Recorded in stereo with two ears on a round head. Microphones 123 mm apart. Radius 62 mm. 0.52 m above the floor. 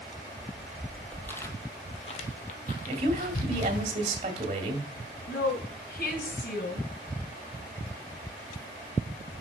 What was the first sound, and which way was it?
Footsteps, 10° right (ahead or behind).